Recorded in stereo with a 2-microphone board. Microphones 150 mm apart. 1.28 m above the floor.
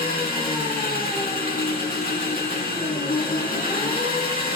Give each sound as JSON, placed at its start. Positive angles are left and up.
{"t": 0.0, "sound": "an engine running", "side_deg": 80, "distance_m": 1.9}